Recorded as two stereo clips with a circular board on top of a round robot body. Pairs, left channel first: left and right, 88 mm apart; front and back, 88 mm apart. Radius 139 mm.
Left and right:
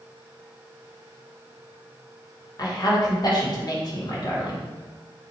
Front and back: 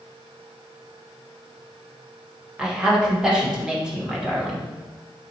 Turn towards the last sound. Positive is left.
turn(degrees=105)